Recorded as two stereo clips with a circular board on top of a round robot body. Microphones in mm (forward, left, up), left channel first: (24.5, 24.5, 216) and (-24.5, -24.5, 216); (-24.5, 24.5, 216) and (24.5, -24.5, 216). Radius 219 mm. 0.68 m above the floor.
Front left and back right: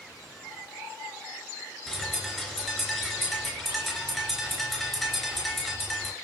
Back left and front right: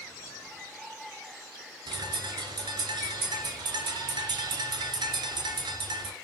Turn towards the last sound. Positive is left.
turn(degrees=-45)